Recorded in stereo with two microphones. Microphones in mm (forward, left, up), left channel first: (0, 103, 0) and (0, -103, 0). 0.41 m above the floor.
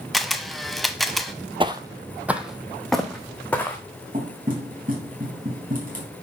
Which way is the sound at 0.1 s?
Centre (ahead or behind).